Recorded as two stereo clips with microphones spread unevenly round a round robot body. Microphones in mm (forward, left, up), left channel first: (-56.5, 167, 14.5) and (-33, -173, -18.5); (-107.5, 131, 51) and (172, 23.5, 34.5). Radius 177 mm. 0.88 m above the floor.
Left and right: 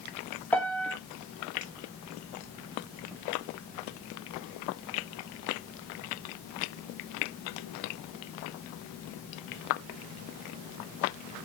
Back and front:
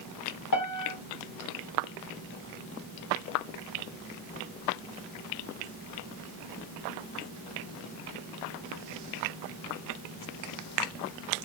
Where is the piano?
Straight behind, 0.9 m.